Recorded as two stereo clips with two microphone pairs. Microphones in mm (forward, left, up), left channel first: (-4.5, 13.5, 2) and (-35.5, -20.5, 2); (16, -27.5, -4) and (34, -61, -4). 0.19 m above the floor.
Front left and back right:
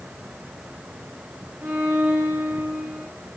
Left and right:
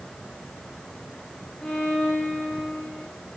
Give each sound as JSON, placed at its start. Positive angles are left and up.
{"t": 1.6, "sound": "a violin", "azimuth_deg": 180, "distance_m": 4.5}